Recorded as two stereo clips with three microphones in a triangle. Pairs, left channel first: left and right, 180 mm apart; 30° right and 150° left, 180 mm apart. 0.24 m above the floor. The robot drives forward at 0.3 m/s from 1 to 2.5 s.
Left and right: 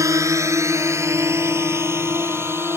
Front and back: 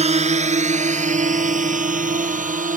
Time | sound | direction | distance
0.0 | a drone | 160° right | ?